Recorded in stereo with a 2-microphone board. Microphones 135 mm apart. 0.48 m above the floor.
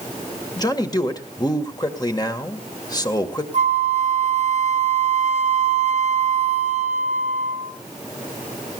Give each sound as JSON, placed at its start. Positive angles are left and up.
{"t": 0.6, "sound": "a man speaking", "side_deg": 30, "distance_m": 1.6}
{"t": 3.5, "sound": "a flute", "side_deg": -55, "distance_m": 1.7}